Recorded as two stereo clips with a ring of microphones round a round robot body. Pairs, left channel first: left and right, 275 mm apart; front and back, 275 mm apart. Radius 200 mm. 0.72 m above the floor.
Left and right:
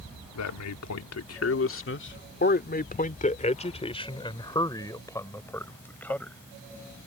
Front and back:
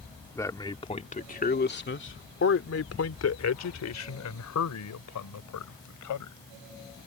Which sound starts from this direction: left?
A man speaking, at 0.3 s.